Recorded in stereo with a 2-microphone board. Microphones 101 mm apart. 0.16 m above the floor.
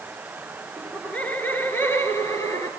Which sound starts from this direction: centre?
Laughter, at 0.8 s.